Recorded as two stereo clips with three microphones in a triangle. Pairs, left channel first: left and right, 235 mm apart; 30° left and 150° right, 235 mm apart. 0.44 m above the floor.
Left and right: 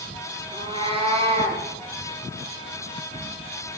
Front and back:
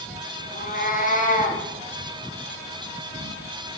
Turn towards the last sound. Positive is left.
turn(degrees=-25)